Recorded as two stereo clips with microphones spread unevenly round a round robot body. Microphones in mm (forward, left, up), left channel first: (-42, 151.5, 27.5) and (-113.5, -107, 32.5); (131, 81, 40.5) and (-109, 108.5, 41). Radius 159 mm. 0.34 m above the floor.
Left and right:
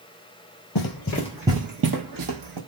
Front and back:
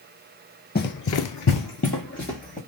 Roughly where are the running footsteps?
Ahead left.